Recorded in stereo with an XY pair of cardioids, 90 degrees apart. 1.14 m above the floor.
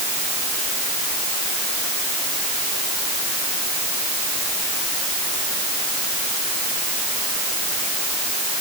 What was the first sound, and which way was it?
Only background noise.